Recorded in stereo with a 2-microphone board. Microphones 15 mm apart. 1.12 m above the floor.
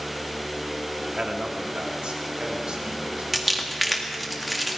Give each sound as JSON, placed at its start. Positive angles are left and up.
{"t": 1.1, "sound": "a man speaking", "side_deg": -75, "distance_m": 1.9}
{"t": 3.3, "sound": "crumpling", "side_deg": 0, "distance_m": 1.9}